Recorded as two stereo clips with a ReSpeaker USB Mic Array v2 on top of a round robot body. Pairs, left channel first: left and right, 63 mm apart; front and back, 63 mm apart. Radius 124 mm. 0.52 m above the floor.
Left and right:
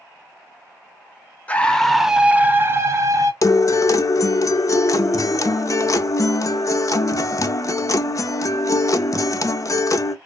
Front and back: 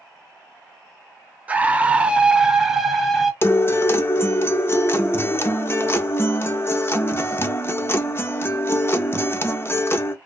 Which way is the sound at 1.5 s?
135° left.